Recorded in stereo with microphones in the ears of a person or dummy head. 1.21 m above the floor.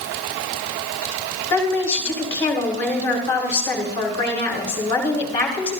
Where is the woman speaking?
15° left (ahead or behind), 3 m.